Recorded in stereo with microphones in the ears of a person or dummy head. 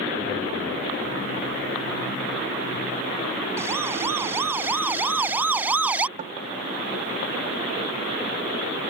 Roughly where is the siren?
Centre.